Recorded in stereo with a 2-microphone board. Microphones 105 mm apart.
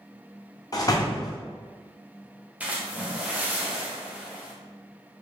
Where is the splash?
15° right (ahead or behind), 0.7 m.